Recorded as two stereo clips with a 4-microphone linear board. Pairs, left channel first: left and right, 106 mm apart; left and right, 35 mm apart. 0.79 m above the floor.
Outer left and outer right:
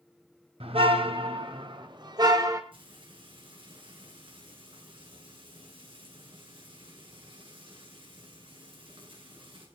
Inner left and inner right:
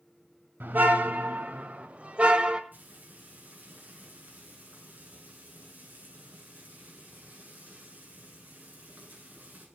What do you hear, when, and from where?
0.6 s a car horn: 70° right (ahead or behind), 2.5 m; by 2.6 s 35° right (ahead or behind), 2 m
2.7 s frying: 60° right (ahead or behind), 9 m